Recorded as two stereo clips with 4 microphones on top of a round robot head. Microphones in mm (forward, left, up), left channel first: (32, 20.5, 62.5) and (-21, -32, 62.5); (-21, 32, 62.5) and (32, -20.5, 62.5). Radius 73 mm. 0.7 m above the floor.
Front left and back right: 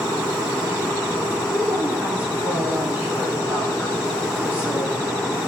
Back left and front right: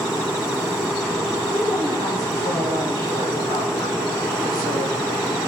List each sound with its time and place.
1.5 s a woman speaking: 155° left, 8.5 m